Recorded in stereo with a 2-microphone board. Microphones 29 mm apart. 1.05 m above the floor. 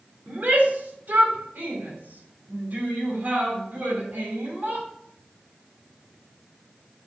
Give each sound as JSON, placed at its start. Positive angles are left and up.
{"t": 0.3, "sound": "a shout", "side_deg": -65, "distance_m": 3.0}